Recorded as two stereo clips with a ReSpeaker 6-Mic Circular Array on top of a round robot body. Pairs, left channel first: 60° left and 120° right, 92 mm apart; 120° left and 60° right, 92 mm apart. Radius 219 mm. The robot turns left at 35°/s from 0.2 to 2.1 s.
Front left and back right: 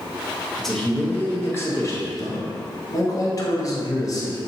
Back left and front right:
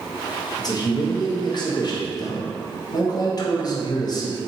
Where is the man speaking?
150° left, 1.1 m; by 4.4 s 95° left, 1.1 m.